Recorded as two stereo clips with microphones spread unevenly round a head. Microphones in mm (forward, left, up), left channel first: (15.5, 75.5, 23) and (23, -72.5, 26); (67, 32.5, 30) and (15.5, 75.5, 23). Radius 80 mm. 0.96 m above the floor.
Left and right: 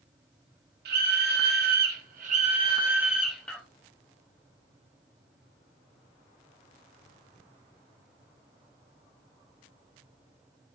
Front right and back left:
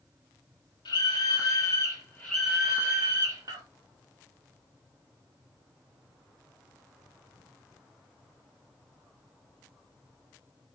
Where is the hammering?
No hammering in this recording.